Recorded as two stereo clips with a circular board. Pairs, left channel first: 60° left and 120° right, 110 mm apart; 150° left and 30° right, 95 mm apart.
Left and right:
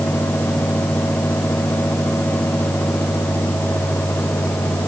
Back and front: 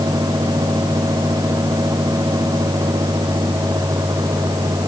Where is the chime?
No chime in this recording.